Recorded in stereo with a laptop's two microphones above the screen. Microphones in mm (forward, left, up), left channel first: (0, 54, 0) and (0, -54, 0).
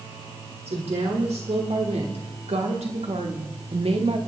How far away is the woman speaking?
About 3.5 m.